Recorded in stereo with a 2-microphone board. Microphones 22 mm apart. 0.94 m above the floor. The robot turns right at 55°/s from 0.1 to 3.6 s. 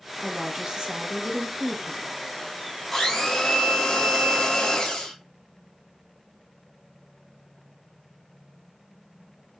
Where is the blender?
20° left, 1.5 m; by 5.1 s 55° left, 1.5 m.